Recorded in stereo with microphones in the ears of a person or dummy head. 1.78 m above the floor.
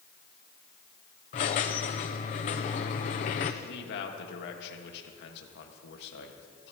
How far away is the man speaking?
About 1.7 m.